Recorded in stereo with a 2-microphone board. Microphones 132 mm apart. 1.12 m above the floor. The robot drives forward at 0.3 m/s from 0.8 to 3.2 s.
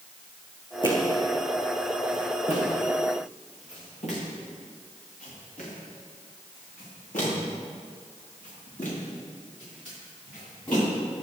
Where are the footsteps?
35° left (ahead or behind), 4.5 m; by 10.8 s 85° left, 16.5 m.